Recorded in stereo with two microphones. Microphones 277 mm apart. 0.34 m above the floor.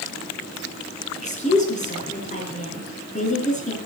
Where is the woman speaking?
25° left (ahead or behind), 4.5 m.